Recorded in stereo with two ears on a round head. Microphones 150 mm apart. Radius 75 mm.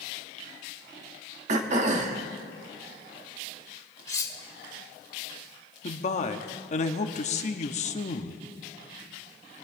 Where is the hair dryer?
I don't hear a hair dryer.